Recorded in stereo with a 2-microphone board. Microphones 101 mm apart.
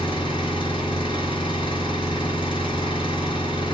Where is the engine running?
55° left (ahead or behind), 4 m.